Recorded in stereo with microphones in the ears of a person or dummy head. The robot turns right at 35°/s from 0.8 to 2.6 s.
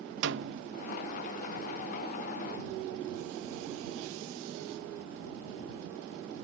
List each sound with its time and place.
0.2 s a snare drum: 65° right (ahead or behind)